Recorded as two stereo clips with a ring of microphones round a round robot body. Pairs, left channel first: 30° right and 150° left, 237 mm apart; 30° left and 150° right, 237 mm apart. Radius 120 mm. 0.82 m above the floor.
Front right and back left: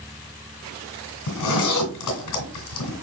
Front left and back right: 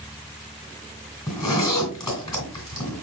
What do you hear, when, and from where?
1.3 s a zipper: 45° right, 1.9 m